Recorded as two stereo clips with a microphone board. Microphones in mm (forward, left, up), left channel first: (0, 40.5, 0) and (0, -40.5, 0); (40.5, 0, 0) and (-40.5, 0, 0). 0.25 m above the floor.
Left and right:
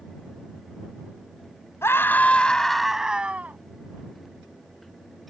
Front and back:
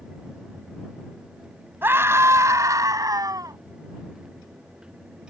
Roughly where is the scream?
Behind left.